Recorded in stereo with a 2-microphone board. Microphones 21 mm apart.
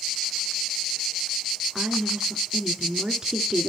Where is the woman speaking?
35° right (ahead or behind), 1.3 m.